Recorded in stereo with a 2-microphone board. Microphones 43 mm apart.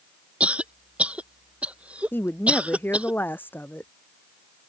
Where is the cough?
30° right (ahead or behind).